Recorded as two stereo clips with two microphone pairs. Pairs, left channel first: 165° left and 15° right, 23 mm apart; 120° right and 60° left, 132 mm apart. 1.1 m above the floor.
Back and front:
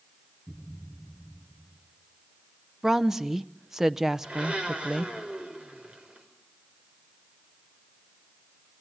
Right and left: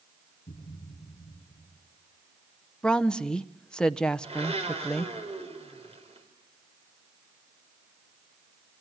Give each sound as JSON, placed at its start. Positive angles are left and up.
{"t": 0.5, "sound": "a thud", "azimuth_deg": -90, "distance_m": 9.0}
{"t": 2.8, "sound": "a woman speaking", "azimuth_deg": -55, "distance_m": 0.7}
{"t": 4.2, "sound": "a blender", "azimuth_deg": 20, "distance_m": 4.5}